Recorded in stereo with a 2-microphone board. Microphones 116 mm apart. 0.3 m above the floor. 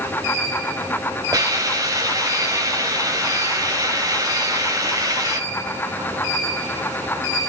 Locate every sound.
1.3 s a hiss: 30° right (ahead or behind), 1.5 m